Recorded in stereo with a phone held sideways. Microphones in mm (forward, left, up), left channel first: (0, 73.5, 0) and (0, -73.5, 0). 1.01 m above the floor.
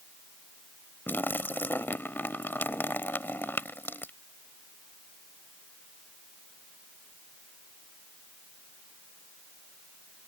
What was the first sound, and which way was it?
A splash, 15° left (ahead or behind).